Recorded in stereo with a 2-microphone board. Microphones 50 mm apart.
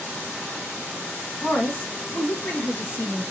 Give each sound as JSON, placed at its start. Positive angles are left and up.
{"t": 1.4, "sound": "a woman speaking", "side_deg": 35, "distance_m": 1.5}